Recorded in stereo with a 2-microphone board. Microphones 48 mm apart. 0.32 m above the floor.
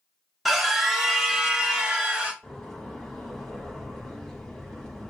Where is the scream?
Centre (ahead or behind), 1.0 m; by 2.3 s 20° right (ahead or behind), 1.7 m.